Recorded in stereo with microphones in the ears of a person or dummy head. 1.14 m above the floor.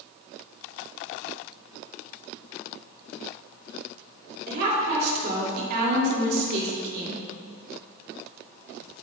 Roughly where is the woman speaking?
Right.